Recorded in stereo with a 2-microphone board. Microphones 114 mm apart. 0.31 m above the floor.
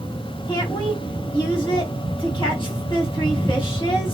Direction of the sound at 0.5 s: 45° left (ahead or behind).